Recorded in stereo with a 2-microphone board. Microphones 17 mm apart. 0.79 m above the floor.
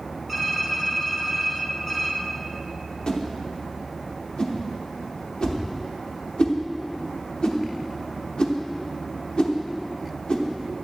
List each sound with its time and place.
0.3 s typing on a keyboard: 5° left (ahead or behind), 2.0 m
3.1 s a whoosh: 55° left (ahead or behind), 1.0 m